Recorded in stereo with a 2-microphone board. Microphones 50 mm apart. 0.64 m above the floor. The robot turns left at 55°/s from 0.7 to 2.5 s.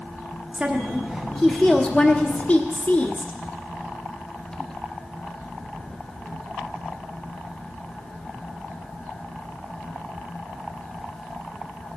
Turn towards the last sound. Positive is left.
turn(degrees=105)